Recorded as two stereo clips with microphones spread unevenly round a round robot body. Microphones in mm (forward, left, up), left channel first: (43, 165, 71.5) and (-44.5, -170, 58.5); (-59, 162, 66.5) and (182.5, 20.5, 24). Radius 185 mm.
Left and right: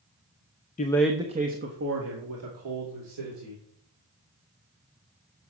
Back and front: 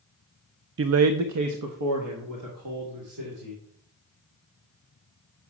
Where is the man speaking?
5° left, 0.6 m; by 3.6 s 65° right, 2.5 m.